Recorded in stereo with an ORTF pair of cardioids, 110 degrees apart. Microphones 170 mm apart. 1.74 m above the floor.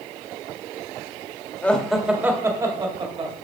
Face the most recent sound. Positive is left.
turn(degrees=-35)